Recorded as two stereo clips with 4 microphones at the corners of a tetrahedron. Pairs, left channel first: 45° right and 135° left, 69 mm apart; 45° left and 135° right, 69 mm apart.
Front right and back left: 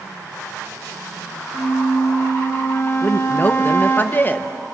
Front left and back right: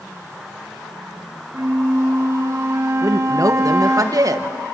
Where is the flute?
95° right, 3 m.